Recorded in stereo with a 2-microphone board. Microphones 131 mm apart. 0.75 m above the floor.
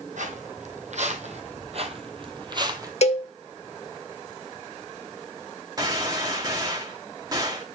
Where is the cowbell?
55° left (ahead or behind), 0.9 m.